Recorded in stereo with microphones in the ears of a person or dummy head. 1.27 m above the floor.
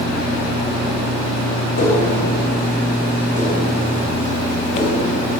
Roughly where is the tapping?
Left.